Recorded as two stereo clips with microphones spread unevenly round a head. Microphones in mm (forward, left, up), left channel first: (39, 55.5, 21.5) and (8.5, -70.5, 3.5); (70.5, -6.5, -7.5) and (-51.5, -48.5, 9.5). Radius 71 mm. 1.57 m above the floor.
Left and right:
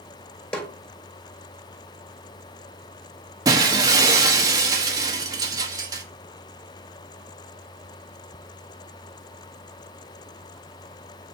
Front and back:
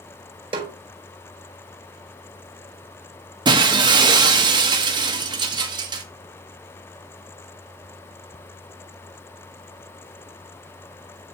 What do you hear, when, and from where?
0.5 s a snare drum: 155° left, 1.6 m
3.5 s breaking glass: 165° right, 1.1 m